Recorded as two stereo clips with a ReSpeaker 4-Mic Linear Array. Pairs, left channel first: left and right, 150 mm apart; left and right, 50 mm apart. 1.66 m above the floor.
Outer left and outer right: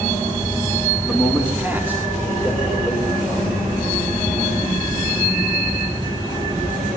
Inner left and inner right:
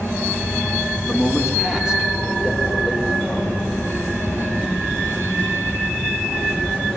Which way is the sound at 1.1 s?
5° right (ahead or behind).